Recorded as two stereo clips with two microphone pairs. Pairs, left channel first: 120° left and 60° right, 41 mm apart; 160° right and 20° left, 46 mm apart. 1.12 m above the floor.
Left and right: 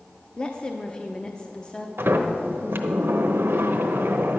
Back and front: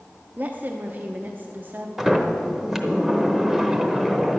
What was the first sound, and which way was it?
A woman speaking, 60° left.